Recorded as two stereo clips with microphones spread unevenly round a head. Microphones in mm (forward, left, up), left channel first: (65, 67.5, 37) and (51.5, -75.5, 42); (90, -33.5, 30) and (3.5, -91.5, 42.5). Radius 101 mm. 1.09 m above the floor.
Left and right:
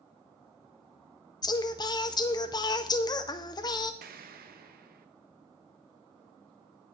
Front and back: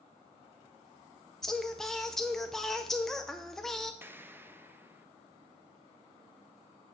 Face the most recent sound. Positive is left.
turn(degrees=-75)